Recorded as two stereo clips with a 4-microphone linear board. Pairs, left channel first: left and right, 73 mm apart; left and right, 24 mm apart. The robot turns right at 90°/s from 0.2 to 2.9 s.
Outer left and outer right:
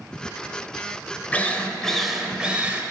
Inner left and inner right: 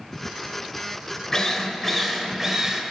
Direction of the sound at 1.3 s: 20° left (ahead or behind).